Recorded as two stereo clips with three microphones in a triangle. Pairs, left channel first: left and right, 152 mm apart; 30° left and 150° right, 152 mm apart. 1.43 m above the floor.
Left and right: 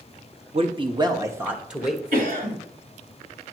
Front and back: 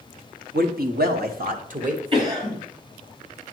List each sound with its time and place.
0.5 s a man speaking: 140° right, 1.0 m; by 2.0 s straight behind, 1.1 m
2.1 s a cough: 95° right, 3.5 m